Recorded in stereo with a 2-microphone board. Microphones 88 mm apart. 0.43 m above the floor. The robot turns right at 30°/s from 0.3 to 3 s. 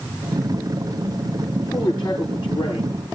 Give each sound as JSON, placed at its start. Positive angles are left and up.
{"t": 1.6, "sound": "a man speaking", "azimuth_deg": 45, "distance_m": 8.5}